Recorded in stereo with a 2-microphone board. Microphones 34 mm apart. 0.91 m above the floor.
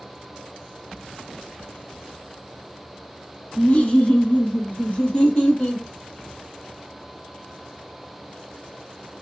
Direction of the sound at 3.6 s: 35° left (ahead or behind).